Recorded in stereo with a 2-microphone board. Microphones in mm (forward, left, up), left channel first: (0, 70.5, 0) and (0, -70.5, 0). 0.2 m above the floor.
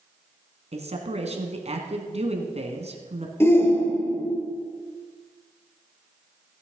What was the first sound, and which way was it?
A man speaking, 50° right (ahead or behind).